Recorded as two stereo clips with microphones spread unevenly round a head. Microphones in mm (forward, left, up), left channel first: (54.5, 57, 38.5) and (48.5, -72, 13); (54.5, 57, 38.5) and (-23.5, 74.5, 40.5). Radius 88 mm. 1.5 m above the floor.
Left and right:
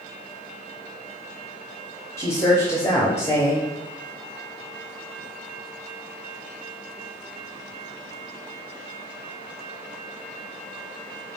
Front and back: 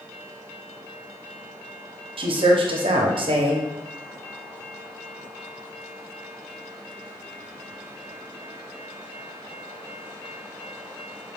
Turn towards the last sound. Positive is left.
turn(degrees=165)